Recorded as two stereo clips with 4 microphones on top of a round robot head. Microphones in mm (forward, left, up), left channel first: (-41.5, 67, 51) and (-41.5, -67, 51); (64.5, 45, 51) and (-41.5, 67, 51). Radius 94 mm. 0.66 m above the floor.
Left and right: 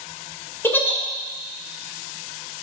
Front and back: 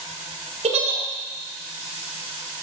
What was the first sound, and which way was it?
A giggle, 165° left.